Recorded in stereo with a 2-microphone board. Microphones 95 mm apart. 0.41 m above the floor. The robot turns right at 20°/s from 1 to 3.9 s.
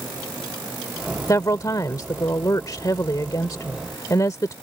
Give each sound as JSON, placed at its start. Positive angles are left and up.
{"t": 1.3, "sound": "a woman speaking", "azimuth_deg": 60}